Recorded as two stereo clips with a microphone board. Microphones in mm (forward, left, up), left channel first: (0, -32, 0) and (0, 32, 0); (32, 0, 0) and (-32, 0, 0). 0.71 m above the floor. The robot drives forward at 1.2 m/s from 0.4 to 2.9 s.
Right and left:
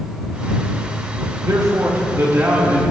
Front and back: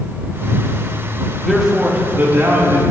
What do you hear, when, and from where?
1.4 s a man speaking: 85° left, 1.2 m; by 2.8 s 145° left, 2.0 m